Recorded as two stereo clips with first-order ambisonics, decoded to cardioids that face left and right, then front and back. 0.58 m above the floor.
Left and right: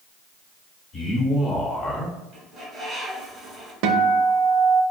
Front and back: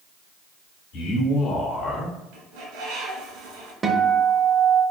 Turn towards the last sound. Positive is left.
turn(degrees=-105)